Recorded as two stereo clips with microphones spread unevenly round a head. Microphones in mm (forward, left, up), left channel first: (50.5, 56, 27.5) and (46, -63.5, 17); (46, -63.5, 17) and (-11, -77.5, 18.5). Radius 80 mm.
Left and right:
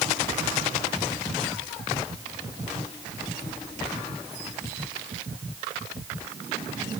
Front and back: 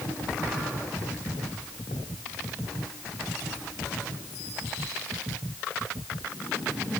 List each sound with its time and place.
Only background noise.